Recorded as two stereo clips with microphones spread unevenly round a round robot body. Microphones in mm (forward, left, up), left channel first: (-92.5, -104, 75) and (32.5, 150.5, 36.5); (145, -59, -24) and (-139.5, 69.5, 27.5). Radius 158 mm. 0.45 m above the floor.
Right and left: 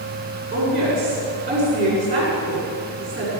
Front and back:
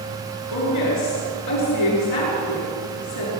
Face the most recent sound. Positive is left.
turn(degrees=-5)